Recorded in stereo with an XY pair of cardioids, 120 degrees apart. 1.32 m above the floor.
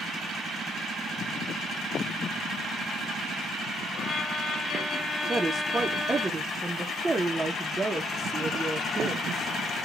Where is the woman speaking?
20° right, 1.2 m.